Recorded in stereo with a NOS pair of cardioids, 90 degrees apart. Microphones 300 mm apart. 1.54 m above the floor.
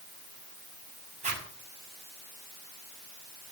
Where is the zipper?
25° right, 6 m.